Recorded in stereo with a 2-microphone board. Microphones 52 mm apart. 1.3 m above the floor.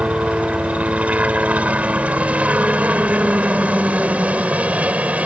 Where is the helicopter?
25° right (ahead or behind).